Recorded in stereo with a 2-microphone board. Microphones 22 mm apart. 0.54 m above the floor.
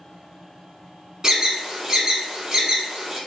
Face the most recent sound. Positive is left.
turn(degrees=-30)  # may be behind; listen again after turning